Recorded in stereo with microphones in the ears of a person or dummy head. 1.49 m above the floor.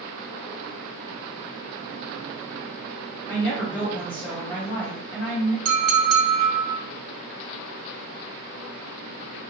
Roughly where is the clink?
Right.